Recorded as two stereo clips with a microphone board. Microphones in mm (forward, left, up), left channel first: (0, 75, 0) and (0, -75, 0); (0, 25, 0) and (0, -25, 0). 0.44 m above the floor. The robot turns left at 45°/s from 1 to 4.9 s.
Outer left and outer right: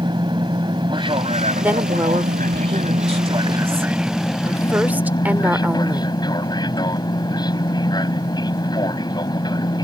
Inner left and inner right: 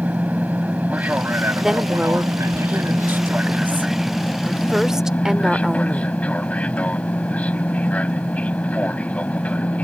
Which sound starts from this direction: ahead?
A woman speaking, at 1.6 s.